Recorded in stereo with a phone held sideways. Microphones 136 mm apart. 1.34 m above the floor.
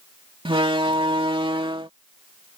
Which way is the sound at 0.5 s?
40° right (ahead or behind).